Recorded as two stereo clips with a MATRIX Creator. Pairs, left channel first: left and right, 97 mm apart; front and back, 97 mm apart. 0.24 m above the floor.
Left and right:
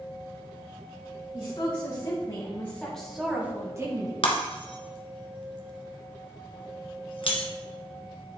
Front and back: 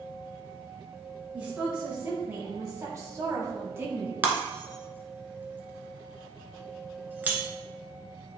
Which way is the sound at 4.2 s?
110° left.